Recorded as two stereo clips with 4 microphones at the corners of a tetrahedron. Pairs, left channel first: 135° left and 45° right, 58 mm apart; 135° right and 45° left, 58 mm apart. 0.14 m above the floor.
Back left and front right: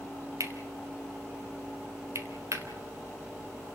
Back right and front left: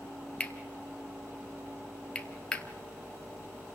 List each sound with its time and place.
0.4 s cutlery clinking: 65° right, 1.6 m